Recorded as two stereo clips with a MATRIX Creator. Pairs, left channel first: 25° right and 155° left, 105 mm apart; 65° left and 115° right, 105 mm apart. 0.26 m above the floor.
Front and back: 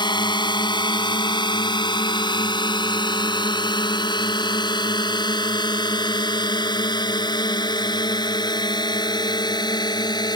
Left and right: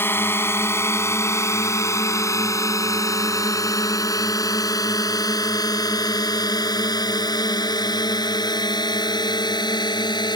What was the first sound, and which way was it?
A drone, 5° left.